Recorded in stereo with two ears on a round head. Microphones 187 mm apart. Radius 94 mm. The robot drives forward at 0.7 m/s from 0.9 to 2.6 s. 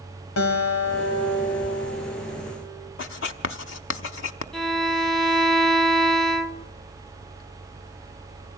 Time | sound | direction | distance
0.4 | a guitar | 80° left | 3.5 m
3.0 | writing | 65° left (ahead or behind) | 1.0 m
4.5 | a violin | centre (ahead or behind) | 0.7 m